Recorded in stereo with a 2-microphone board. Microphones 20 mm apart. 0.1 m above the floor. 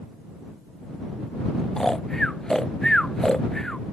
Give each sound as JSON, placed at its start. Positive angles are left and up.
{"t": 1.8, "sound": "snoring", "side_deg": 25}